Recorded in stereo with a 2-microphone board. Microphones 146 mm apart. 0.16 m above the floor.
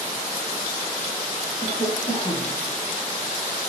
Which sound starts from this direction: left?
A cough, at 1.6 s.